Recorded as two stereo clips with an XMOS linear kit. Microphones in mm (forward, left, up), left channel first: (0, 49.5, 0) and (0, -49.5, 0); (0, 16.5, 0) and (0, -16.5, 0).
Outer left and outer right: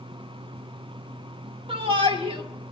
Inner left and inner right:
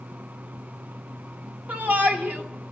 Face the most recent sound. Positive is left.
turn(degrees=-65)  # may be behind; listen again after turning